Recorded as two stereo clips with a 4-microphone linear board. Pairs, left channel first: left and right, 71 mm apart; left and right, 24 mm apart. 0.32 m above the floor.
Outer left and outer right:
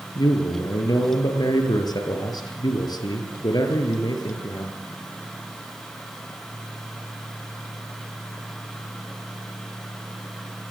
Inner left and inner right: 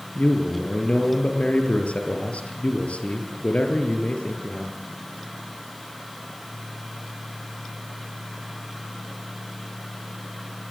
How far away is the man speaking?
About 7 m.